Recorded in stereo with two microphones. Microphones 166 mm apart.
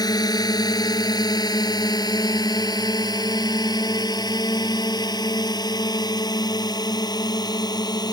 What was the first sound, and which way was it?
A drone, 25° left (ahead or behind).